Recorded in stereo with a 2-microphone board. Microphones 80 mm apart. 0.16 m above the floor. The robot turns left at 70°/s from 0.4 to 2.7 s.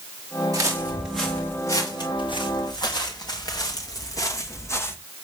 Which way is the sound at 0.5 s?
50° right (ahead or behind).